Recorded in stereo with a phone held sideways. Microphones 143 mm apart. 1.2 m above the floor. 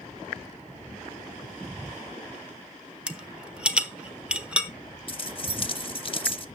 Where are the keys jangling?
40° left (ahead or behind), 0.9 m.